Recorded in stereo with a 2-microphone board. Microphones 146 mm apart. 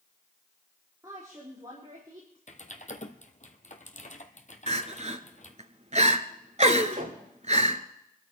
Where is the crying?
50° right (ahead or behind), 0.9 m.